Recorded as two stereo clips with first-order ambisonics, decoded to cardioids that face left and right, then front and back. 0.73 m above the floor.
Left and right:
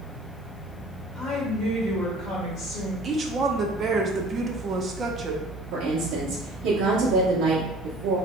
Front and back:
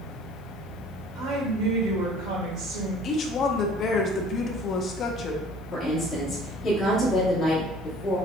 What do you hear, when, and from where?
1.1 s a woman speaking: 160° left, 2 m
3.0 s a woman speaking: 35° right, 0.6 m
5.7 s a woman speaking: 70° right, 1.2 m